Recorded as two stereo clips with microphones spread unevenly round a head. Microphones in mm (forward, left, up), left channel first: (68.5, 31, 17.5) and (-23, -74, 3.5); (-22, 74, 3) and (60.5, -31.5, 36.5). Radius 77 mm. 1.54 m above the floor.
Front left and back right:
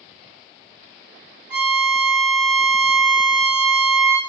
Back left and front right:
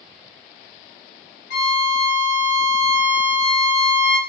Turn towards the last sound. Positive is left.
turn(degrees=150)